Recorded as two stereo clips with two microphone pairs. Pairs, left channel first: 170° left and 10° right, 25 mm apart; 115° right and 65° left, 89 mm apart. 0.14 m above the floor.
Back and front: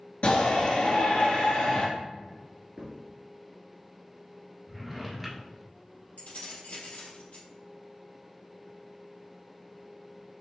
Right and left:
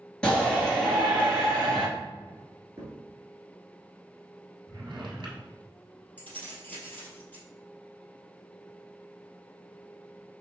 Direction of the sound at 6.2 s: 175° left.